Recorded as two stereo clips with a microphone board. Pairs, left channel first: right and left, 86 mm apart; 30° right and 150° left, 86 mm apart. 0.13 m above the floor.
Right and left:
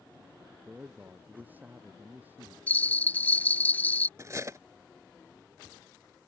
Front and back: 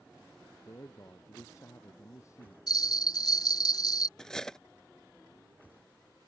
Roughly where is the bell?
Ahead right.